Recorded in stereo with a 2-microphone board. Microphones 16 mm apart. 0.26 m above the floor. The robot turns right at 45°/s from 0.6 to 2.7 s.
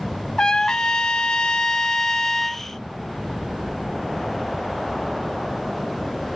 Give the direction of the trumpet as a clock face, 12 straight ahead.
10 o'clock.